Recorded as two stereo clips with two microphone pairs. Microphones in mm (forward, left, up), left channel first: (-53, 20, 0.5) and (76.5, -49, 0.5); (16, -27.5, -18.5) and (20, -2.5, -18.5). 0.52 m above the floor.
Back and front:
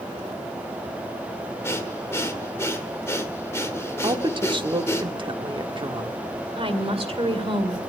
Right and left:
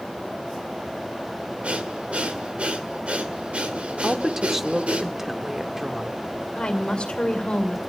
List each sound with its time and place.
1.6 s breathing: 85° left, 1.8 m
4.0 s a woman speaking: 5° left, 1.0 m
6.5 s a woman speaking: 65° right, 2 m